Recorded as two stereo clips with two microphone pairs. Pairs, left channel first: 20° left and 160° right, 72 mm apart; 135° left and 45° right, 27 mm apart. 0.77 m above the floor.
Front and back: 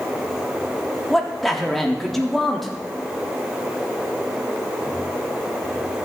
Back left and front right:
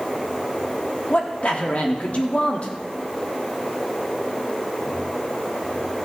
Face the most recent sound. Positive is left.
turn(degrees=105)